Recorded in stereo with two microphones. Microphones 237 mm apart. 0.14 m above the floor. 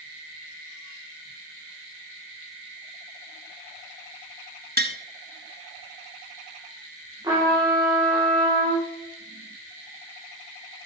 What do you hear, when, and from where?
4.8 s tapping: 40° right (ahead or behind), 0.7 m
7.2 s a trumpet: 15° right (ahead or behind), 7 m